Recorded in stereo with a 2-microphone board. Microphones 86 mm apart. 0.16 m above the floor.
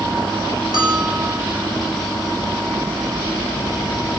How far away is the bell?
About 3.5 m.